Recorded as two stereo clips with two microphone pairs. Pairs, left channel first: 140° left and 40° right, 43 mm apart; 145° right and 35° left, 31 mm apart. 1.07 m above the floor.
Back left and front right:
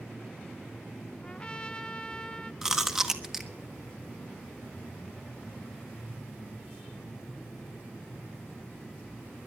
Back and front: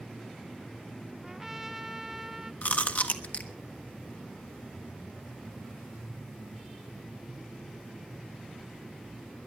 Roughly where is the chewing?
Behind right.